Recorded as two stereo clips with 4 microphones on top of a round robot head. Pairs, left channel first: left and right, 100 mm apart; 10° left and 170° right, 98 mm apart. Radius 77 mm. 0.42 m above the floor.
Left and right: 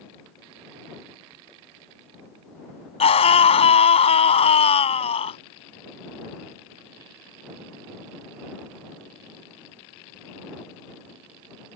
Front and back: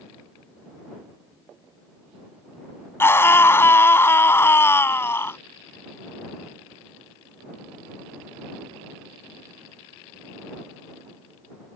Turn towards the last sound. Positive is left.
turn(degrees=75)